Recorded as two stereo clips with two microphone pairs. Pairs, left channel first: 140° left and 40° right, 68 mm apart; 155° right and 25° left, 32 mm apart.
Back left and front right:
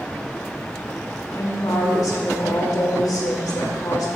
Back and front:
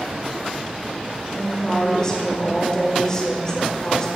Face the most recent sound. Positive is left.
turn(degrees=140)